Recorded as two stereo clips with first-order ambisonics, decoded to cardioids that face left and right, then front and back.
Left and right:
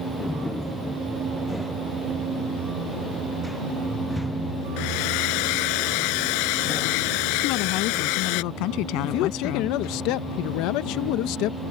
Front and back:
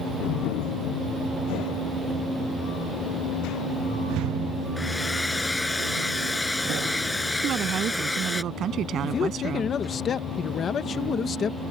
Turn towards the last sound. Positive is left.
turn(degrees=65)